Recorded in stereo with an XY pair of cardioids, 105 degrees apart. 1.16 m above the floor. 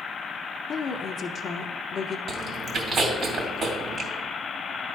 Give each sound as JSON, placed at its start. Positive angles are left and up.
{"t": 0.7, "sound": "a woman speaking", "azimuth_deg": 50, "distance_m": 0.8}
{"t": 2.3, "sound": "chewing", "azimuth_deg": -50, "distance_m": 2.5}